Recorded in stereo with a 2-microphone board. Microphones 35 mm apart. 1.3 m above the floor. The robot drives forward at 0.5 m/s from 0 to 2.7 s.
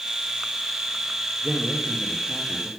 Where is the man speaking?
20° right (ahead or behind), 1.4 m; by 2.7 s 15° right (ahead or behind), 2.0 m.